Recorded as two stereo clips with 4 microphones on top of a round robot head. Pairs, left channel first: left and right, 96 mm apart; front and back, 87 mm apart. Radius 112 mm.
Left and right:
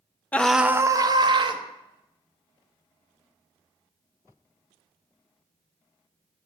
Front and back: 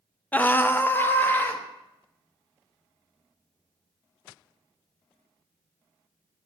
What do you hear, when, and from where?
0.3 s a scream: 45° left, 0.5 m; by 1.6 s 70° right, 1.0 m